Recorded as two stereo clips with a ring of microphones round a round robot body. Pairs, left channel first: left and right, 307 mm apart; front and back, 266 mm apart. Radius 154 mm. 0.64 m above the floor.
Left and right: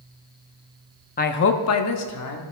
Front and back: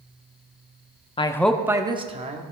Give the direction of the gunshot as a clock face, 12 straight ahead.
No gunshot in this recording.